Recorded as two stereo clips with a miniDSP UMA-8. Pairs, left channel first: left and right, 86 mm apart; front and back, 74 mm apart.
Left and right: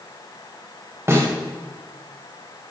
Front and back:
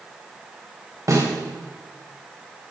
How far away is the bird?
No bird in this recording.